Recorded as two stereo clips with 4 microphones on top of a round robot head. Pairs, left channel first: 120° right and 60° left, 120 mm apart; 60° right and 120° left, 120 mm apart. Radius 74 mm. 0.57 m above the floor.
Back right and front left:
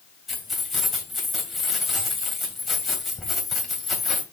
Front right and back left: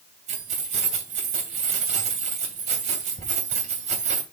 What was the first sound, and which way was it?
Keys jangling, 145° left.